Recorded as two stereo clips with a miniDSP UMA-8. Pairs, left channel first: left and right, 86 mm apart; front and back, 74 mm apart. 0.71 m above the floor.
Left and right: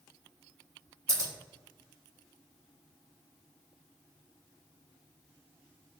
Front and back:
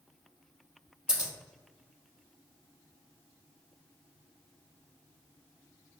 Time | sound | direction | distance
1.1 | scissors | 110° right | 0.9 m